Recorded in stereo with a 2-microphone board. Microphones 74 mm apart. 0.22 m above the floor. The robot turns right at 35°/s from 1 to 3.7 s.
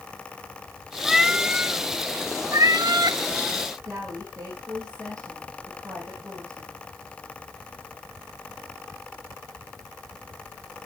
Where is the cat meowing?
Straight behind, 0.6 m; by 3.2 s 105° right, 0.6 m.